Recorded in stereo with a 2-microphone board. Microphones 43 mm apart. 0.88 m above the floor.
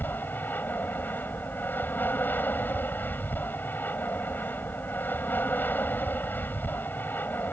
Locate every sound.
0.0 s an aircraft: 50° left (ahead or behind)